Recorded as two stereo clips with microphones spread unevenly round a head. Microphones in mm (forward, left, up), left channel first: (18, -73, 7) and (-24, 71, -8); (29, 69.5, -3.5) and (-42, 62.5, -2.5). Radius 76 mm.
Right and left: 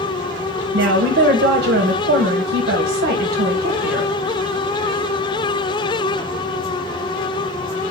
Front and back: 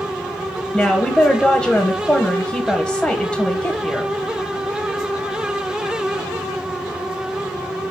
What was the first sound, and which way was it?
A woman speaking, 95° left.